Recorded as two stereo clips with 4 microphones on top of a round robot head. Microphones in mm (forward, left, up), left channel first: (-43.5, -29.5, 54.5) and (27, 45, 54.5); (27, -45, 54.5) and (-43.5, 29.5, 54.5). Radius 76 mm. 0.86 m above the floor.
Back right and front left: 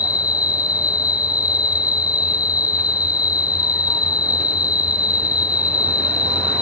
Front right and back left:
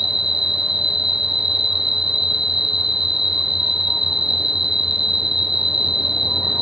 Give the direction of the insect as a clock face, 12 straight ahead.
5 o'clock.